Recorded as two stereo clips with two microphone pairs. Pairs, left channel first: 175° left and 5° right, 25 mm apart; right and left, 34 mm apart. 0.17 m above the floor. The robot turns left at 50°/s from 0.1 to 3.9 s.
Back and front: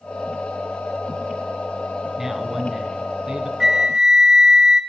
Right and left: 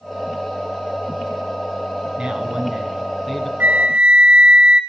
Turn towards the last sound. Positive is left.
turn(degrees=50)